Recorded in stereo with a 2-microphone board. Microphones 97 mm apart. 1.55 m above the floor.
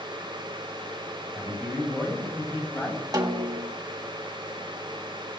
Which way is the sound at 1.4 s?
5° left (ahead or behind).